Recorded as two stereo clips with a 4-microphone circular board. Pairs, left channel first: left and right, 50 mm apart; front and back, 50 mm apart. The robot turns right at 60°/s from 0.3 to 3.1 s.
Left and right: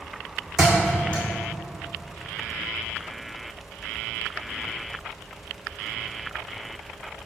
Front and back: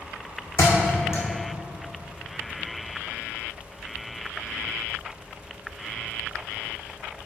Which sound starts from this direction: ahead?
A thud, at 0.6 s.